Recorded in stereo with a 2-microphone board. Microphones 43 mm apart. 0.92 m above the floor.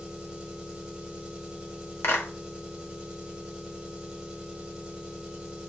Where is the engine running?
20° right (ahead or behind), 1.4 m.